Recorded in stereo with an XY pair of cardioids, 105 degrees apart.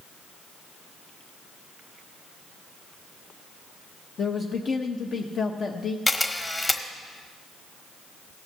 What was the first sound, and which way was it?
A man speaking, 50° left.